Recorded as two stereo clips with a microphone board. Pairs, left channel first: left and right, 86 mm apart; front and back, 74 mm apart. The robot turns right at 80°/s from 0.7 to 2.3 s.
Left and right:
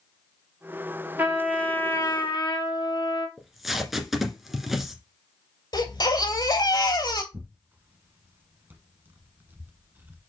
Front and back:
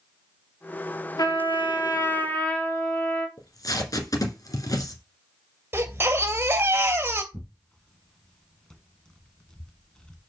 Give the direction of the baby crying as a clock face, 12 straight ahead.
8 o'clock.